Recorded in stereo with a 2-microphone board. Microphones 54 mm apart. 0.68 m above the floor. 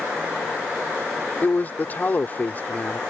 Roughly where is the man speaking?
Left.